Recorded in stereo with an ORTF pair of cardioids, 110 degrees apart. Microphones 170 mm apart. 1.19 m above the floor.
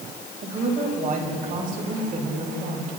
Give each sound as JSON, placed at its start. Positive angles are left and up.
{"t": 0.4, "sound": "a woman speaking", "azimuth_deg": -50, "distance_m": 5.0}